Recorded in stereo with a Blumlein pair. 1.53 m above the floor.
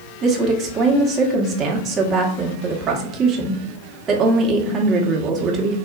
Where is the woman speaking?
30° right, 1.0 m.